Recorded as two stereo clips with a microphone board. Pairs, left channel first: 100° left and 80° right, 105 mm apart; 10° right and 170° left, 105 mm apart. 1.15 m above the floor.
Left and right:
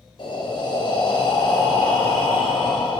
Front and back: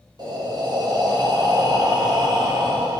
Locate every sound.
0.2 s breathing: 125° left, 0.6 m